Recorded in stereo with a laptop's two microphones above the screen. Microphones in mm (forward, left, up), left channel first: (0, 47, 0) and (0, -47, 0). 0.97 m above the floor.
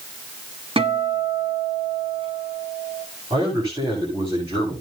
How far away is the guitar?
About 1.4 m.